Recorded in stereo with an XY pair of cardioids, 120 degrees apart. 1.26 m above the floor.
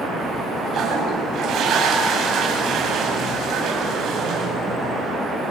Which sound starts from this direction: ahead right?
A toilet flushing, at 0.7 s.